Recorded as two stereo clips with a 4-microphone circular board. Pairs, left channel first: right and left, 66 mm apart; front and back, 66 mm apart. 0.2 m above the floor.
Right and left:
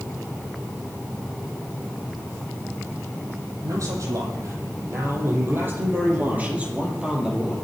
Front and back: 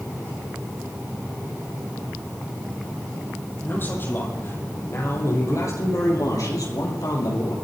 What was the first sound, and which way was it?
A man speaking, 55° left.